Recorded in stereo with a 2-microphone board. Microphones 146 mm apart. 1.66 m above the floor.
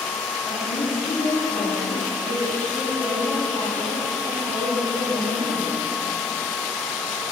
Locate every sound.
0.4 s a woman speaking: 80° left, 2.5 m